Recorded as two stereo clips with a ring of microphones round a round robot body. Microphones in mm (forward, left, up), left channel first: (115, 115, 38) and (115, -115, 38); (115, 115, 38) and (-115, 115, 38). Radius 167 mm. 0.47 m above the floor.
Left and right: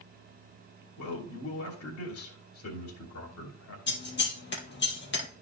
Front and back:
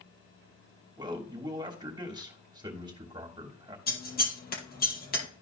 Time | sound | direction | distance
1.0 | a man speaking | 110° left | 3 m
3.9 | scissors | 50° left | 2.5 m